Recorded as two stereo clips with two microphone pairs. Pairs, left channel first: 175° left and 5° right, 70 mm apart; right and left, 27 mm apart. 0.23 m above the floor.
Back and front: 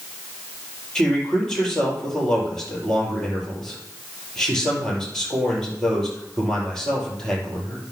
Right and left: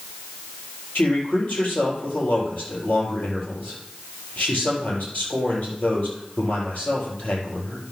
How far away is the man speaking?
About 4.5 m.